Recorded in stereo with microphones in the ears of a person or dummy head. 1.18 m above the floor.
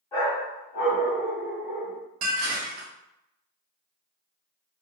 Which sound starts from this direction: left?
A dog barking, at 0.1 s.